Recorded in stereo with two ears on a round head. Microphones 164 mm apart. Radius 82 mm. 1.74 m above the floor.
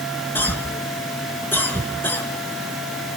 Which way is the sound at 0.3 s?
10° left (ahead or behind).